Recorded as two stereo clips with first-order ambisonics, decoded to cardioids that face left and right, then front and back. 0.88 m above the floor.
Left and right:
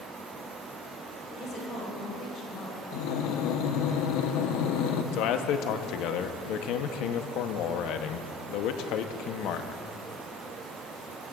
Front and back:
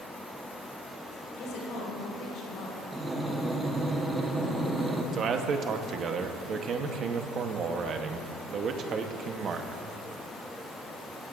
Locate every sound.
1.4 s a woman speaking: 35° left, 4.5 m
2.9 s breathing: 95° left, 1.0 m
5.1 s a man speaking: 120° left, 0.8 m